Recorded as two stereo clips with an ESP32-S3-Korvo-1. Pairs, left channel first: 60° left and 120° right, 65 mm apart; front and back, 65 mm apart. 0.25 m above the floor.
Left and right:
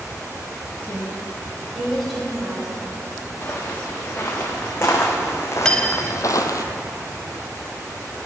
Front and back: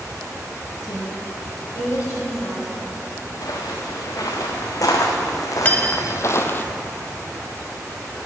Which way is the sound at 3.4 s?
5° left.